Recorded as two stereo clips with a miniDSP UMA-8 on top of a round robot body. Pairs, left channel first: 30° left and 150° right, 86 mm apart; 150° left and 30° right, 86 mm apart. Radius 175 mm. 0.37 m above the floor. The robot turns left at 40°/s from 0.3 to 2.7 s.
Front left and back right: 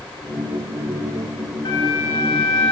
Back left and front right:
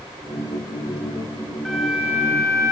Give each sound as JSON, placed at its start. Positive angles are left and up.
{"t": 1.6, "sound": "a flute", "azimuth_deg": 65, "distance_m": 6.0}